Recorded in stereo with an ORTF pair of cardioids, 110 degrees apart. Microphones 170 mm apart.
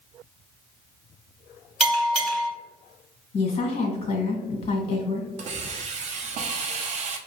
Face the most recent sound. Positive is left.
turn(degrees=-45)